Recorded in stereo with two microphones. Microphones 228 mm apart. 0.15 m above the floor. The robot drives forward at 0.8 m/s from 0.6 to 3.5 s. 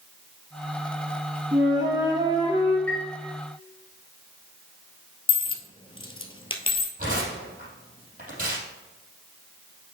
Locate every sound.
1.5 s a flute: 15° right (ahead or behind), 3 m; by 2.8 s 20° right (ahead or behind), 2.5 m
2.9 s a chime: 5° left (ahead or behind), 1.0 m
5.3 s a dropped coin: 25° left (ahead or behind), 0.7 m
7.0 s tearing paper: 40° right (ahead or behind), 3.5 m